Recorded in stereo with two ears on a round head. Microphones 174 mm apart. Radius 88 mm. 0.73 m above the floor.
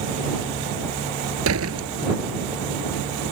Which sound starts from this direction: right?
A door slam, at 1.4 s.